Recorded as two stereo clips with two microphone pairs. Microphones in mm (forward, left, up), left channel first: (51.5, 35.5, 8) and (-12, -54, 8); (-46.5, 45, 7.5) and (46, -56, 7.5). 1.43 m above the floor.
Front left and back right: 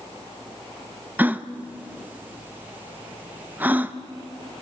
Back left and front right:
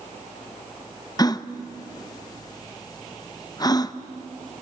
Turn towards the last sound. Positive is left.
turn(degrees=170)